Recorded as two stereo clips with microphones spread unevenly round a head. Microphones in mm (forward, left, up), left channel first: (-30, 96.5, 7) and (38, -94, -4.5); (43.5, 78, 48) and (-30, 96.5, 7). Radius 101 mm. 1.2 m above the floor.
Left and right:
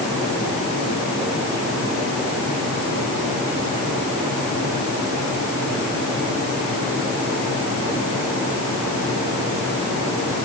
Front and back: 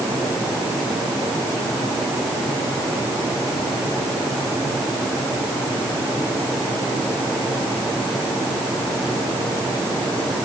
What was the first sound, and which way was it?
Only background noise.